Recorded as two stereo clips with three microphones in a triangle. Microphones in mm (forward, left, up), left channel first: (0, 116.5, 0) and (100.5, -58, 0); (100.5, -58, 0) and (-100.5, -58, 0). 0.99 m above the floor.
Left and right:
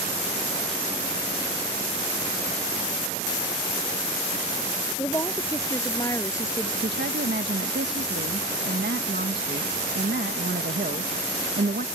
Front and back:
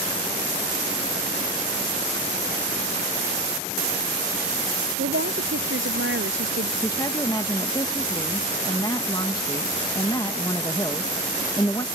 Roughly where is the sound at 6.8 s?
Right.